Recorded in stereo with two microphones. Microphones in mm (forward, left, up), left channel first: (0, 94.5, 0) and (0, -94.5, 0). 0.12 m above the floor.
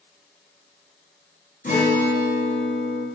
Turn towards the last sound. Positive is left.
turn(degrees=50)  # may be behind; listen again after turning